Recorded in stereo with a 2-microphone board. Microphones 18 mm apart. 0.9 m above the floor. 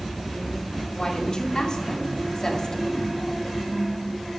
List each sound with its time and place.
0.9 s a woman speaking: 55° left (ahead or behind), 3 m; by 3.1 s 45° left (ahead or behind), 2 m